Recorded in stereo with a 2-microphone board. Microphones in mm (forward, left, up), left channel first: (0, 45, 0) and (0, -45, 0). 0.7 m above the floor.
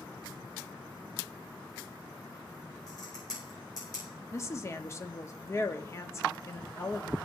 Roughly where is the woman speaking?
Left.